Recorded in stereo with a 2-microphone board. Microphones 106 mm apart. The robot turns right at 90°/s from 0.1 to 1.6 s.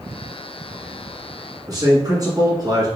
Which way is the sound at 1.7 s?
35° right (ahead or behind).